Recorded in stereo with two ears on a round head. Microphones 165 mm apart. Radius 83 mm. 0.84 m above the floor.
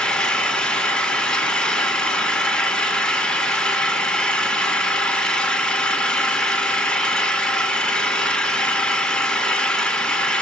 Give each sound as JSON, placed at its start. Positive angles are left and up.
{"t": 0.0, "sound": "an engine running", "side_deg": 5, "distance_m": 1.0}